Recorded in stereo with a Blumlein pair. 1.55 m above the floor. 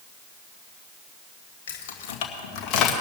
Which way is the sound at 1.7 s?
55° left.